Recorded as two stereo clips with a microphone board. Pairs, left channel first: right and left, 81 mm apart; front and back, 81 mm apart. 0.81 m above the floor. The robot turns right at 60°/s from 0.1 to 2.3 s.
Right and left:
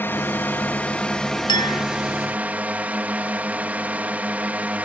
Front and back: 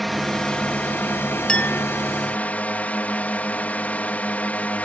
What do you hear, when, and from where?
0.0 s a drone: 90° right; by 4.8 s 45° left
1.5 s a clink: 80° right; by 1.9 s 55° right